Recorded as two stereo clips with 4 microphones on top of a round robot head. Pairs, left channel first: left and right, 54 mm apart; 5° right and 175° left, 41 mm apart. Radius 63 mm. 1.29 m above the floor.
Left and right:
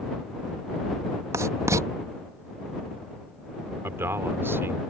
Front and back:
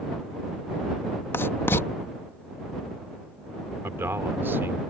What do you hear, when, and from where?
1.3 s writing: 45° right
3.8 s a man speaking: 135° right